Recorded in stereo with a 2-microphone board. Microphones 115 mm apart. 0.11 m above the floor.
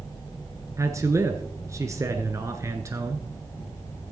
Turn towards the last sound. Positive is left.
turn(degrees=-25)  # may be behind; listen again after turning